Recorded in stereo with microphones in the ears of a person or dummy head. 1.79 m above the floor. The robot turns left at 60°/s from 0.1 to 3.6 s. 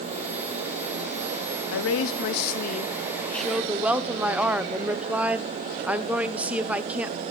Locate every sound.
1.7 s a woman speaking: 105° left, 0.9 m; by 7.2 s 10° right, 0.9 m